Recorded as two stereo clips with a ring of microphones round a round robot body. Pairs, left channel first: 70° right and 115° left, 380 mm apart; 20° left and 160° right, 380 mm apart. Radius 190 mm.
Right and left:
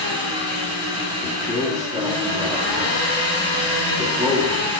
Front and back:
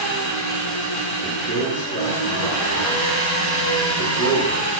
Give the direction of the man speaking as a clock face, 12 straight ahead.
11 o'clock.